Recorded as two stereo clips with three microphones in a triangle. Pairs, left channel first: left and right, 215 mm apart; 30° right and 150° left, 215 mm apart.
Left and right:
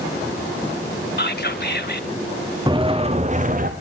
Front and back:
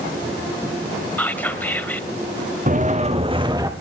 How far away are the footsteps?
About 2.5 m.